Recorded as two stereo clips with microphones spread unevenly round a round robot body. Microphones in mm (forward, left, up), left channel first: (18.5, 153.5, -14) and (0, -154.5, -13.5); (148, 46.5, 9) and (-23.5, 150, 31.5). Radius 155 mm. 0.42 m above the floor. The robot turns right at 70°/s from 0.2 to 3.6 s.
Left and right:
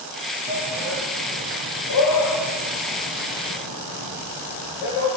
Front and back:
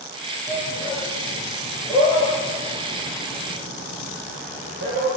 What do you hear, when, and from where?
0.5 s a shout: 35° right, 8 m; by 5.1 s 175° right, 8 m